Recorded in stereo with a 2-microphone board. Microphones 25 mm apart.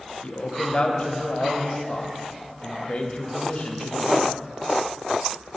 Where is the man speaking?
55° left (ahead or behind), 0.9 m.